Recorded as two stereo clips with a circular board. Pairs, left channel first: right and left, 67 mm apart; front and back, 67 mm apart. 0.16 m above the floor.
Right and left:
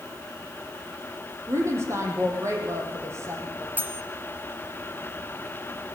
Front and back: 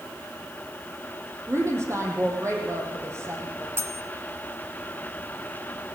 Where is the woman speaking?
135° left, 5 m.